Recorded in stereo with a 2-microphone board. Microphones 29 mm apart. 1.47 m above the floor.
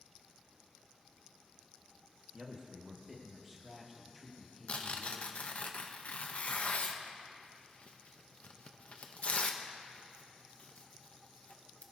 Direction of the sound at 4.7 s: 50° left (ahead or behind).